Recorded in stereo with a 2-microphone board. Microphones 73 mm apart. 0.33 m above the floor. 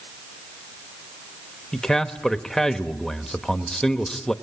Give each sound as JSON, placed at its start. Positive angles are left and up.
{"t": 1.7, "sound": "a man speaking", "side_deg": 5, "distance_m": 0.9}